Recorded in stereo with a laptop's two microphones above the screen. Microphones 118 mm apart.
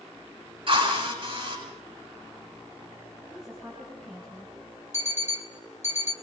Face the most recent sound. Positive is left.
turn(degrees=80)